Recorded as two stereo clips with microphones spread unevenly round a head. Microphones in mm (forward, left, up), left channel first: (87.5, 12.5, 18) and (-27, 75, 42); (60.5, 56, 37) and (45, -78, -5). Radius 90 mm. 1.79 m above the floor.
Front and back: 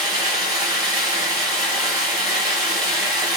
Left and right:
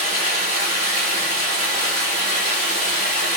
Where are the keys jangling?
No keys jangling in this recording.